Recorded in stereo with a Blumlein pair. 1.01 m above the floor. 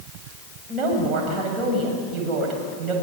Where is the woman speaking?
25° right, 7.5 m.